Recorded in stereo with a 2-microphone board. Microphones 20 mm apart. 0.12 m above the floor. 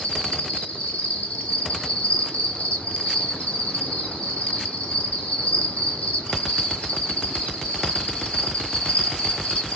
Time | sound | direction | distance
0.0 | an insect | 75° left (ahead or behind) | 1.8 m